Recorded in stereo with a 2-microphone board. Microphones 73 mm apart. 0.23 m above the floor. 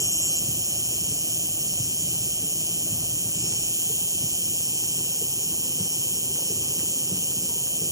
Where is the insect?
50° right (ahead or behind).